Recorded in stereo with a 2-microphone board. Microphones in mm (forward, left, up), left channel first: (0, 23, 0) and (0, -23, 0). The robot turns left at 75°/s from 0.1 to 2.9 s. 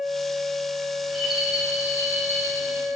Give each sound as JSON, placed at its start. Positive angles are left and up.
{"t": 1.0, "sound": "a rattle", "azimuth_deg": 15, "distance_m": 3.5}